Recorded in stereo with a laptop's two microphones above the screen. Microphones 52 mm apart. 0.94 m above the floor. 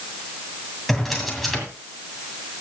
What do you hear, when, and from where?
0.9 s a drawer: 5° left (ahead or behind), 2 m